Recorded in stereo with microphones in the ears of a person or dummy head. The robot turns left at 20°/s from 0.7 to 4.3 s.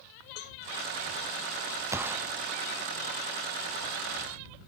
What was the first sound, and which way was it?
A cowbell, 55° left (ahead or behind).